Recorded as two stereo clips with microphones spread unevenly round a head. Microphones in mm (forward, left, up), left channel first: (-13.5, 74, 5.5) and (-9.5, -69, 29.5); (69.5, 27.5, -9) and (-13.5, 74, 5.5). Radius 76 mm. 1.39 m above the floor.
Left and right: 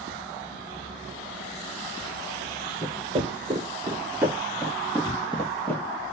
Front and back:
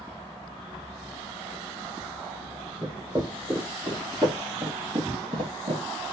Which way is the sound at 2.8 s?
140° right.